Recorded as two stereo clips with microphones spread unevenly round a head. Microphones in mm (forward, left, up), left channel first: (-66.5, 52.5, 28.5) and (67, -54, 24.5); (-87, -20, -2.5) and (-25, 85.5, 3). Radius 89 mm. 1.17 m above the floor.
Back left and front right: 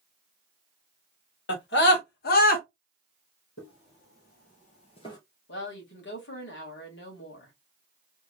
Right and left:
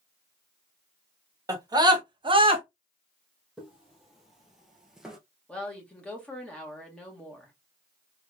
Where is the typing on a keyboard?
No typing on a keyboard in this recording.